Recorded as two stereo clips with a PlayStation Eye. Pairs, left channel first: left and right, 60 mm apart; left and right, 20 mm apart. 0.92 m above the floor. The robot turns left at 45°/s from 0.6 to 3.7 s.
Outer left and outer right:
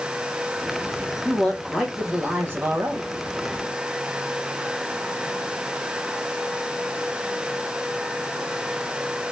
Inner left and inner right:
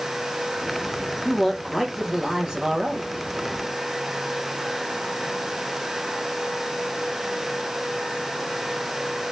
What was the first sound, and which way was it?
A man speaking, 25° left.